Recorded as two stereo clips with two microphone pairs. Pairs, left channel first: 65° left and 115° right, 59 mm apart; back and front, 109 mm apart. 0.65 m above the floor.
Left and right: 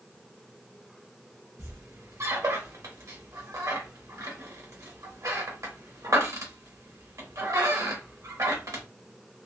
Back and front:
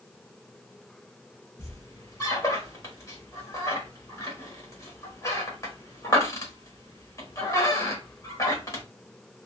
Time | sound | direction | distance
1.6 | a squeak | 125° right | 1.2 m